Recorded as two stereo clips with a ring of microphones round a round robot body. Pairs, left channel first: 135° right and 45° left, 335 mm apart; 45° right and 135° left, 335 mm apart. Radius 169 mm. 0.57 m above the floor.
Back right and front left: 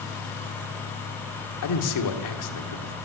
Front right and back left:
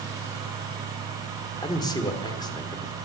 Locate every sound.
1.6 s a man speaking: 120° right, 1.6 m